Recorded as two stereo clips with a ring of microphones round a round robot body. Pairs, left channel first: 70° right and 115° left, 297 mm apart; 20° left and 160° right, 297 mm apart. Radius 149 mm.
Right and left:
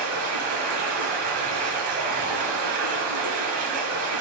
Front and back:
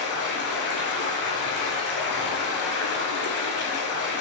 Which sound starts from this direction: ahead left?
Running water, at 0.0 s.